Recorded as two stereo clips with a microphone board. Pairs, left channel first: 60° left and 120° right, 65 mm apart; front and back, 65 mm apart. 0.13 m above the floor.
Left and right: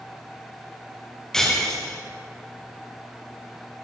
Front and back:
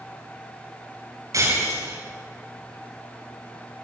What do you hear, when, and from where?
1.3 s breaking glass: 140° left, 9.5 m